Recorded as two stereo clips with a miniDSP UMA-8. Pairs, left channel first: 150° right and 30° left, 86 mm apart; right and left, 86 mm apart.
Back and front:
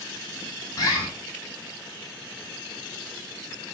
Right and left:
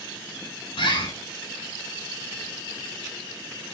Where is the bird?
100° right, 9.5 m.